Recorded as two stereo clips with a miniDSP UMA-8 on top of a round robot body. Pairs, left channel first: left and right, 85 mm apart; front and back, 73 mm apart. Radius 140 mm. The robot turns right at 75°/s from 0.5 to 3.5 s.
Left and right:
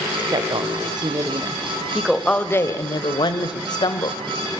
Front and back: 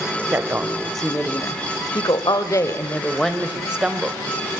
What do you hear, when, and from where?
0.3 s a woman speaking: 120° right, 1.8 m; by 4.2 s 105° left, 1.8 m